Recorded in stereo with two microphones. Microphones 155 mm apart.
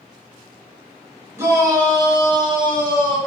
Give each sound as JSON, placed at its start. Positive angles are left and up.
{"t": 1.4, "sound": "a shout", "side_deg": -15, "distance_m": 0.9}